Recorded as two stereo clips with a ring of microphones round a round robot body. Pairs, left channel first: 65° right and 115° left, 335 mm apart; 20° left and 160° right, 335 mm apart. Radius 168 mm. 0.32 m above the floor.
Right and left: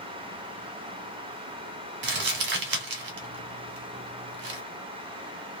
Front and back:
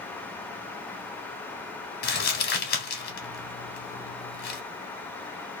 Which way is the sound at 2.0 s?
70° left.